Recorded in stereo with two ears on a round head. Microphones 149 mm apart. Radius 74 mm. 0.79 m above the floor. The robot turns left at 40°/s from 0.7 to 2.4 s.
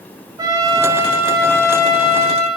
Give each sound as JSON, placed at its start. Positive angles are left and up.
{"t": 0.4, "sound": "a trumpet", "azimuth_deg": -155, "distance_m": 3.5}